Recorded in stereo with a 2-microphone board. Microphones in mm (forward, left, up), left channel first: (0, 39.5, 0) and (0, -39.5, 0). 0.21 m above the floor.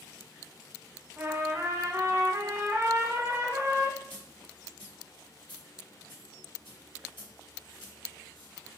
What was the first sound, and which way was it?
A trumpet, 35° right (ahead or behind).